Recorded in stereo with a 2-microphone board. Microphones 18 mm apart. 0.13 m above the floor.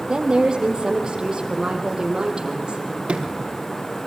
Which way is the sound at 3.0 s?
70° right (ahead or behind).